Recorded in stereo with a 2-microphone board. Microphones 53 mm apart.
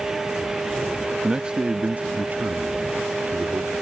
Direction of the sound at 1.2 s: 10° right (ahead or behind).